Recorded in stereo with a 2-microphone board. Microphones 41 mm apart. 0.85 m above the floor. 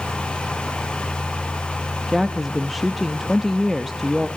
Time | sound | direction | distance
2.1 | a woman speaking | centre (ahead or behind) | 0.7 m